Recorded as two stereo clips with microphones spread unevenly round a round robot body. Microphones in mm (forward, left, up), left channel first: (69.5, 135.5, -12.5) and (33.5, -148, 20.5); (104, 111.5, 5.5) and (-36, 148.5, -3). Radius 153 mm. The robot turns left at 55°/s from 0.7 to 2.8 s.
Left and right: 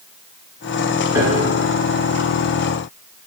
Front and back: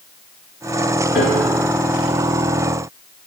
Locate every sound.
1.1 s a piano: 15° right, 2 m; by 1.6 s 40° right, 2 m